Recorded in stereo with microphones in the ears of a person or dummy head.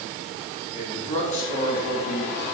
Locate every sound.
0.7 s a man speaking: 40° left (ahead or behind), 4 m; by 2.5 s 70° left (ahead or behind), 4 m